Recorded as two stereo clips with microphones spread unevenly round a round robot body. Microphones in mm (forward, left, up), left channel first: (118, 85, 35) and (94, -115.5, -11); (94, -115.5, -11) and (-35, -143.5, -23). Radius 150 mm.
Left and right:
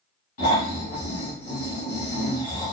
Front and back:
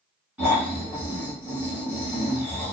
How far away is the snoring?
About 1.1 m.